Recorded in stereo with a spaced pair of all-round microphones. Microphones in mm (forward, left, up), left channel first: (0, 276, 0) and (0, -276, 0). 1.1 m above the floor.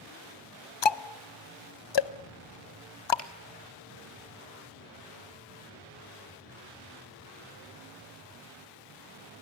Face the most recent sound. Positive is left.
turn(degrees=90)